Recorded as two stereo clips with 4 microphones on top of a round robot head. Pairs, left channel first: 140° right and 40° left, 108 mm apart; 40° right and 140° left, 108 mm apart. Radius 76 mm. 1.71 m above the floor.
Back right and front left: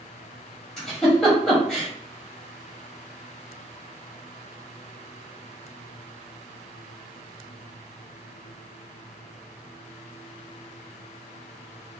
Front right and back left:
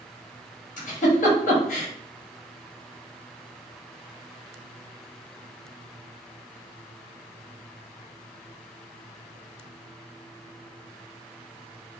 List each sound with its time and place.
0.8 s a giggle: 50° right, 1.1 m